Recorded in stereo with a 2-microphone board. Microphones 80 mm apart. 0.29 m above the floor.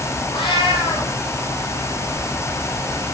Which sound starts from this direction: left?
A cat meowing, at 0.3 s.